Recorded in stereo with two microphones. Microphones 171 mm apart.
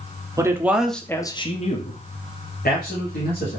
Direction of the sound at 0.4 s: 20° right (ahead or behind).